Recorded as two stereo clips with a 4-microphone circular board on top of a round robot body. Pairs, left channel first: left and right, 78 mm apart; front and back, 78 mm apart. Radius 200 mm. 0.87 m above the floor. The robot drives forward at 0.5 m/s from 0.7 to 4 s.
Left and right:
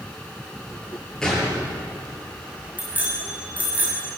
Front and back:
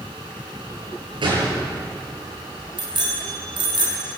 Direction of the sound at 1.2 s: 175° left.